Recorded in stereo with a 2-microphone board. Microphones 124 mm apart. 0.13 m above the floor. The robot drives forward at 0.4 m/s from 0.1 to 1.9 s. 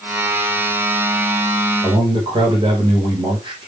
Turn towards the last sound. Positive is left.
turn(degrees=-40)  # may be behind; listen again after turning